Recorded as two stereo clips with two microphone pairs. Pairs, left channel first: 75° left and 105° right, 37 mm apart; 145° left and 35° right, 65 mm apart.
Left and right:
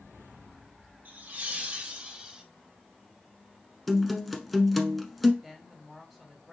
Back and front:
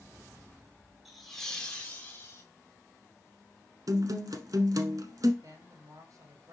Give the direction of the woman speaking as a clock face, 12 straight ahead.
1 o'clock.